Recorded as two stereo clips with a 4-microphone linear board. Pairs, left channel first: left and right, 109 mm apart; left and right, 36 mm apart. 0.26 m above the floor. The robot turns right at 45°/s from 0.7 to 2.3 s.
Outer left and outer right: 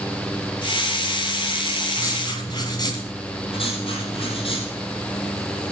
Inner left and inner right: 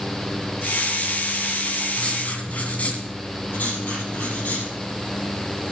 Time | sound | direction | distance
1.9 | writing | 30° left (ahead or behind) | 2.5 m
3.5 | writing | 55° left (ahead or behind) | 3.5 m